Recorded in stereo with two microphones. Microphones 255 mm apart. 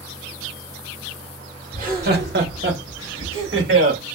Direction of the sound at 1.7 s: 30° right (ahead or behind).